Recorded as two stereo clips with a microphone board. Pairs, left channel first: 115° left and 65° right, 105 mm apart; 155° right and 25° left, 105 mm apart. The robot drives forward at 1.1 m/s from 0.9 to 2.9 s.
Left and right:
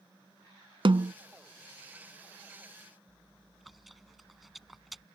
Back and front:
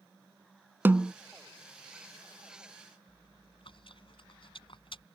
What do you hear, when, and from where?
0.8 s a snare drum: 45° right; by 1.1 s 60° right
3.1 s chewing: 155° right